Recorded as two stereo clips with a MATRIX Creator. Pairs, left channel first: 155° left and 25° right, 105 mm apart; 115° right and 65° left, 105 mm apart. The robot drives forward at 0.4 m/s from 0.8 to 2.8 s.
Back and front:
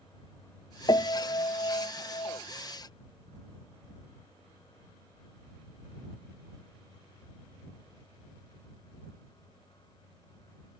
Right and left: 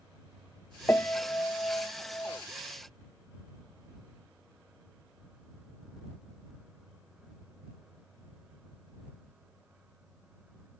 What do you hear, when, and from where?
0.9 s a piano: 175° right; by 2.4 s straight behind